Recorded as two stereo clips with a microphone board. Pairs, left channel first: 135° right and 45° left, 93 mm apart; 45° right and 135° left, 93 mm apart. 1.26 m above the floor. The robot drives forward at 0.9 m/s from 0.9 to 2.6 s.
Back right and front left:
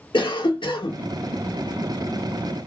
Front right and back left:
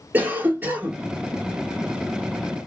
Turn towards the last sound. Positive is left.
turn(degrees=-170)